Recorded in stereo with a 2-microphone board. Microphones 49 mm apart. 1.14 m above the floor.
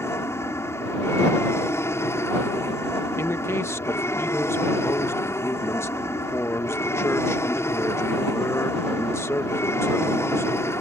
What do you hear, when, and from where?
0.0 s an aircraft: 65° left (ahead or behind)
3.2 s a man speaking: 65° left (ahead or behind)